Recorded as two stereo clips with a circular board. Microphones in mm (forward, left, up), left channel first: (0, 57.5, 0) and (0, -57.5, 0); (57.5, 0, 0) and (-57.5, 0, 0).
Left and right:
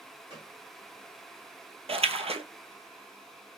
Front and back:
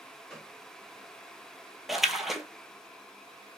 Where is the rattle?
No rattle in this recording.